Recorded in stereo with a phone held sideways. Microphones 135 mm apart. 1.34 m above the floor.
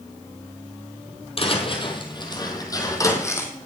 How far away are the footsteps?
About 2 m.